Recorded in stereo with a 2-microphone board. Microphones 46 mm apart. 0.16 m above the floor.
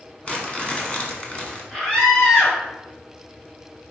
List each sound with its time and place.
0.2 s crumpling: 25° left (ahead or behind), 1.7 m
1.7 s a scream: 10° left (ahead or behind), 2 m